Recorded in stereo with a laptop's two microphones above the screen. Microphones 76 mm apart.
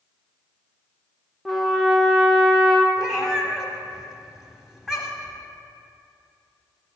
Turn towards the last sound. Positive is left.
turn(degrees=-5)  # may be behind; listen again after turning